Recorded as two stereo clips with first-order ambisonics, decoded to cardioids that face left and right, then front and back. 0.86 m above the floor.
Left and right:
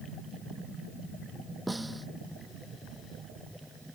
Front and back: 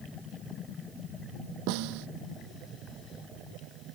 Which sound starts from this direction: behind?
A snare drum, at 1.7 s.